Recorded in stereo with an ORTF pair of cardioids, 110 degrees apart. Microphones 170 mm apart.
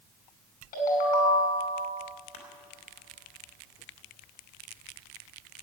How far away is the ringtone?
About 5.5 m.